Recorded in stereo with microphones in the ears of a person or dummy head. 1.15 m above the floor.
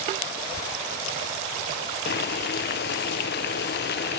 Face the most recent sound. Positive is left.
turn(degrees=55)  # may be behind; listen again after turning